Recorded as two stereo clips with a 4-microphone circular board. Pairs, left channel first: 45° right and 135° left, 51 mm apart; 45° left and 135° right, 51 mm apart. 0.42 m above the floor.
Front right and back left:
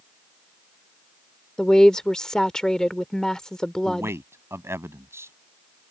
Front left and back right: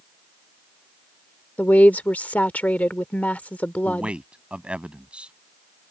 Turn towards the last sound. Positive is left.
turn(degrees=160)